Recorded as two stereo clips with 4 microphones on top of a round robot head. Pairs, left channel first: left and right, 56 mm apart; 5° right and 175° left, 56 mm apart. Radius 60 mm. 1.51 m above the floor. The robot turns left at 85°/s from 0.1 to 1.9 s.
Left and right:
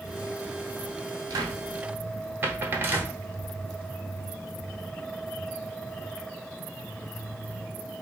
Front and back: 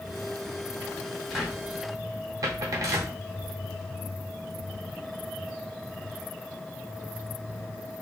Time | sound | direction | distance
1.3 | a cupboard door | 95° right | 0.7 m